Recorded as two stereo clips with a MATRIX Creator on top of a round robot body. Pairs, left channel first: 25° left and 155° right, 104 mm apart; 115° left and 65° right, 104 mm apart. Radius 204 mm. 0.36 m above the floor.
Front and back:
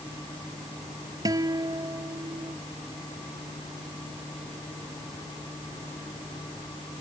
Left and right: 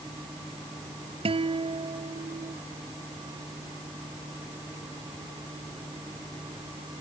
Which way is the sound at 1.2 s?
100° right.